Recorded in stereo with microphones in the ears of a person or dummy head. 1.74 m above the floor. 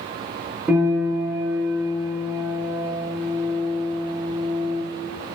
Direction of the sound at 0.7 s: 5° right (ahead or behind).